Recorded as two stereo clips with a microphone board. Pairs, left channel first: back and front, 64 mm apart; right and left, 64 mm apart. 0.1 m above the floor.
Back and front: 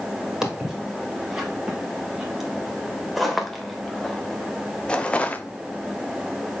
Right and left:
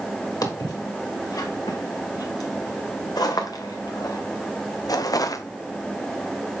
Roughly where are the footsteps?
Right.